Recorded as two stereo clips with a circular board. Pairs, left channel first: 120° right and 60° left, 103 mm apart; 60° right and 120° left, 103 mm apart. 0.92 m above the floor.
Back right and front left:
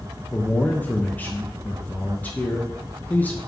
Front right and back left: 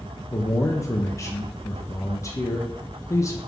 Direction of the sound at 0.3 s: 65° right.